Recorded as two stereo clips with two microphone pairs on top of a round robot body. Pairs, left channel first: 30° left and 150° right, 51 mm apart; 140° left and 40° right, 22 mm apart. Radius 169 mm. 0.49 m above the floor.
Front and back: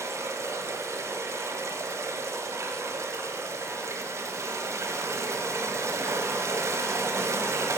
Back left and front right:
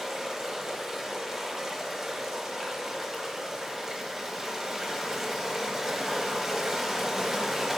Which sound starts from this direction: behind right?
Running water, at 0.0 s.